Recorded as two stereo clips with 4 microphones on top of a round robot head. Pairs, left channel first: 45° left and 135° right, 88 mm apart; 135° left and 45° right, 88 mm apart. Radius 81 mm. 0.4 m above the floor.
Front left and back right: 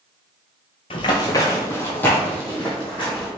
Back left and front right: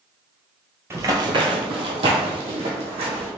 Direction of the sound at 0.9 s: 15° left.